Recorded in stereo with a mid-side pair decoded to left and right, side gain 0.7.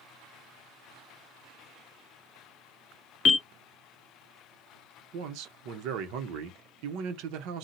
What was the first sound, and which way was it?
A bell, 45° left.